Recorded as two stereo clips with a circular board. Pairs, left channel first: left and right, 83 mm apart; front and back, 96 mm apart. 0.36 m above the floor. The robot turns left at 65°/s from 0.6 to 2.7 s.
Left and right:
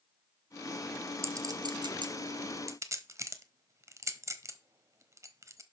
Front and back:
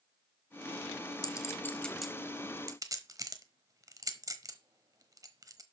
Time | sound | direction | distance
1.2 | a clink | 40° right | 1.1 m